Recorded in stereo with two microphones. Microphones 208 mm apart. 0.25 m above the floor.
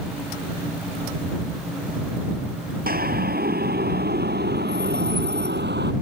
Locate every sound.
2.9 s a siren: 45° right (ahead or behind); by 5.9 s 55° right (ahead or behind)